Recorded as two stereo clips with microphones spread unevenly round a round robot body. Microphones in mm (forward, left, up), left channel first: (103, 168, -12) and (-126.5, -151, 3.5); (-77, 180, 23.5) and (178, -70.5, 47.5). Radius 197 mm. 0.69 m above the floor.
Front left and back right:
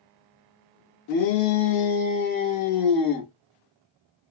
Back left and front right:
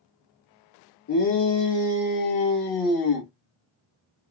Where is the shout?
90° left, 1.4 m; by 3.3 s 145° left, 1.2 m.